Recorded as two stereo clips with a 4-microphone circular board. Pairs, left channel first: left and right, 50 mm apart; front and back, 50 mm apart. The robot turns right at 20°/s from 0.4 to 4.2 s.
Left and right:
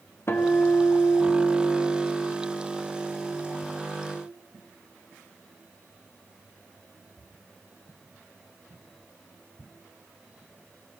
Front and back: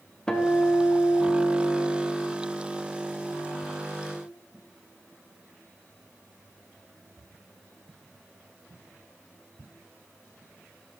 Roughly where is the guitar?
Left.